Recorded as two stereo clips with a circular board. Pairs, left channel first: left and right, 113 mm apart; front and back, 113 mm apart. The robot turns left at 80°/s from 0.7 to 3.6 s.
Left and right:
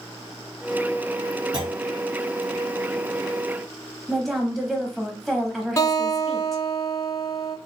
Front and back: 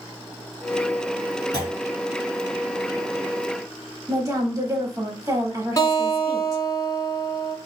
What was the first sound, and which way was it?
A clunk, 50° right.